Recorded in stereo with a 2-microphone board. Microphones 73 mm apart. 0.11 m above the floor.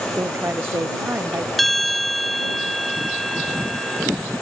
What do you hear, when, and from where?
0.1 s a woman speaking: 35° right (ahead or behind)
1.6 s a bell: 5° left (ahead or behind)